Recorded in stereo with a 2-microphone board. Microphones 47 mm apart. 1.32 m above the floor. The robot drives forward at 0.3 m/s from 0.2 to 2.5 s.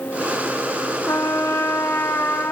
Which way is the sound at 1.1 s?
75° left (ahead or behind).